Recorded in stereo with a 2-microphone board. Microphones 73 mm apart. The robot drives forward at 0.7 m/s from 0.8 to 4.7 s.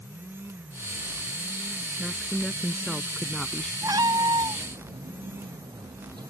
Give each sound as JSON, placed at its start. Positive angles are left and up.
{"t": 2.0, "sound": "a woman speaking", "side_deg": 5}
{"t": 3.8, "sound": "a cat meowing", "side_deg": -55}